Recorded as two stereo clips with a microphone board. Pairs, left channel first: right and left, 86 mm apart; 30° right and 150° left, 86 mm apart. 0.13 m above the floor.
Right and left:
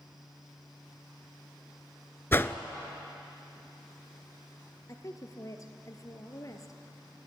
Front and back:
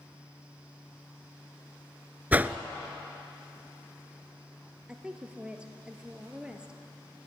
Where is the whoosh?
145° right, 0.7 m.